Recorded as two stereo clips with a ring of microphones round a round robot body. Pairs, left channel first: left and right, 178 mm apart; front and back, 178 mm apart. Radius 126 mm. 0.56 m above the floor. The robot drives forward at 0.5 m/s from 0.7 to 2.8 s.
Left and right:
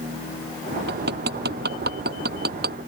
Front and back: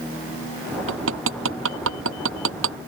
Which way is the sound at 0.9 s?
145° right.